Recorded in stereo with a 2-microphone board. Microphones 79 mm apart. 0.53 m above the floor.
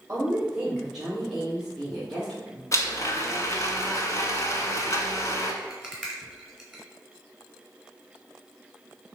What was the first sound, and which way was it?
A woman speaking, 20° right (ahead or behind).